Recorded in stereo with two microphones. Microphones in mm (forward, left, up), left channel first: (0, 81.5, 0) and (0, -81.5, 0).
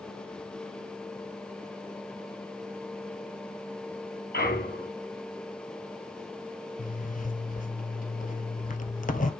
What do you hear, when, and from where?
4.3 s a clunk: 75° left (ahead or behind), 4.5 m
6.8 s a zipper: 55° left (ahead or behind), 1.1 m